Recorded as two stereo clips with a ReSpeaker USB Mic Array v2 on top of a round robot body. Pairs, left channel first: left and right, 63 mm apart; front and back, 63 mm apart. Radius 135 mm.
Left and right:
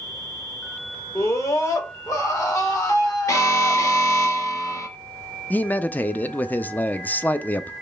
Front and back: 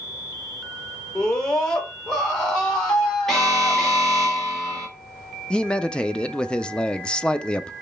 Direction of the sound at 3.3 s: 85° left.